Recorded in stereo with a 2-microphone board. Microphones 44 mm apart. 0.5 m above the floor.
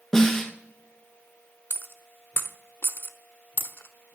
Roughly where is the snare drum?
Centre.